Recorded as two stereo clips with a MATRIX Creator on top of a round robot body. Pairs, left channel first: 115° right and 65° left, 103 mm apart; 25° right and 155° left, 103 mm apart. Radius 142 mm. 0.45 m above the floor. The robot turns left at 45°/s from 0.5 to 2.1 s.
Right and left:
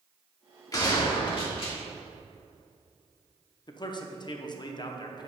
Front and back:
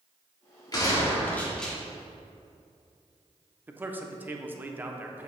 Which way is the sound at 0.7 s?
65° right.